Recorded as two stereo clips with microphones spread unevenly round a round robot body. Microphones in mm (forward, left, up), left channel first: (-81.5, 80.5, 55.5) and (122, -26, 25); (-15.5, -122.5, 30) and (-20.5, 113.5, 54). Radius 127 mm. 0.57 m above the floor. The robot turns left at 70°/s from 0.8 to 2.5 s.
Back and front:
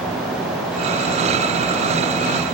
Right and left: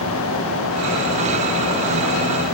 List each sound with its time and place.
Only background noise.